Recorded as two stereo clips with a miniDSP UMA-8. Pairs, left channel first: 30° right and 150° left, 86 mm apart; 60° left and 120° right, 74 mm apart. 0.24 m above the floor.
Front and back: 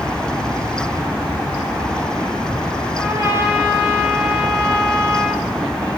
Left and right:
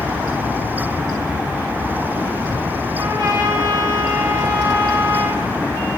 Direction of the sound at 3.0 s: 155° right.